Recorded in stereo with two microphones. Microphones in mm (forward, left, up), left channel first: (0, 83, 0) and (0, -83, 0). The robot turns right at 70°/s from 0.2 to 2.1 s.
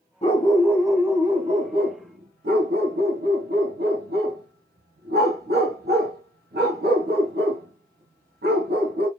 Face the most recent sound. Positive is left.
turn(degrees=-75)  # may be behind; listen again after turning